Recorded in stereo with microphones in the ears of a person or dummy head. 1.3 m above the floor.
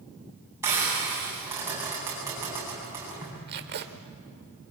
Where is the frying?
10° right (ahead or behind), 9.5 m.